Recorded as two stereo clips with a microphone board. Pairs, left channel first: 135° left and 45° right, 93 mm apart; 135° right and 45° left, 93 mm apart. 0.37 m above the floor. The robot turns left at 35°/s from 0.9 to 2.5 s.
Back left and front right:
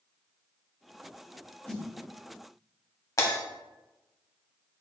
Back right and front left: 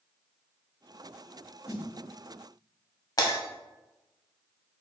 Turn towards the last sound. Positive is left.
turn(degrees=180)